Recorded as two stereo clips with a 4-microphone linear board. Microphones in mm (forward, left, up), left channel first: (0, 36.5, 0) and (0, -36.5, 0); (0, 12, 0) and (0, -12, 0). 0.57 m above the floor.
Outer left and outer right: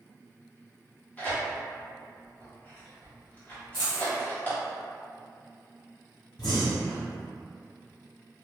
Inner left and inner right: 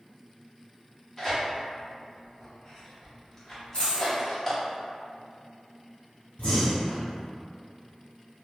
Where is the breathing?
85° left, 1.9 m.